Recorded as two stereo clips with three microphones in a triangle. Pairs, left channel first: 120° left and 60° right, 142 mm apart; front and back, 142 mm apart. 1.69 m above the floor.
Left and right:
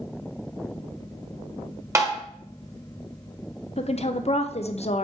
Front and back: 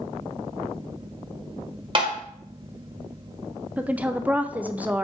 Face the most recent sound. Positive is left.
turn(degrees=100)